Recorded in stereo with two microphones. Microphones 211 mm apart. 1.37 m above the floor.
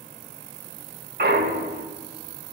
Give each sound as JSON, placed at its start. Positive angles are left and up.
{"t": 1.2, "sound": "a clunk", "side_deg": -50, "distance_m": 0.9}